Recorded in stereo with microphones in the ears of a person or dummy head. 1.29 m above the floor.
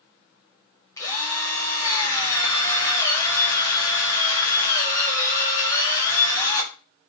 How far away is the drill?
About 1.7 m.